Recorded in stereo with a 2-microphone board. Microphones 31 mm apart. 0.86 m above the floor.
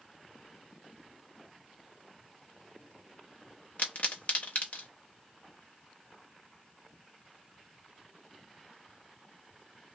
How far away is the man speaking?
No man speaking in this recording.